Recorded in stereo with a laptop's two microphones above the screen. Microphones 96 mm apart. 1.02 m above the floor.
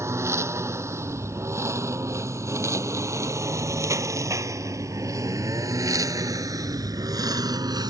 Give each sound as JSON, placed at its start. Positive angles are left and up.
{"t": 0.0, "sound": "a lawn mower", "side_deg": -30}